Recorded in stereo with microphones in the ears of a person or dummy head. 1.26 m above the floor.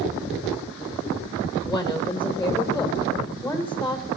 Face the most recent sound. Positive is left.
turn(degrees=5)  # may be behind; listen again after turning